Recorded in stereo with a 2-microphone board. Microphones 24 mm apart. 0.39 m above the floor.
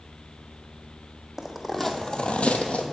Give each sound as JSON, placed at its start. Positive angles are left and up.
{"t": 1.4, "sound": "footsteps", "side_deg": -5, "distance_m": 1.3}